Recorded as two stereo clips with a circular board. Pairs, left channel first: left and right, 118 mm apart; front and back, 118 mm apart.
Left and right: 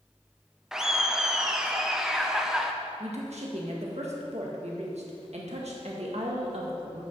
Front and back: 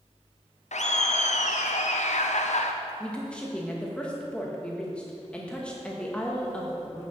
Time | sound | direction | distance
0.7 | laughter | 5° right | 0.6 m
3.0 | a woman speaking | 80° right | 1.8 m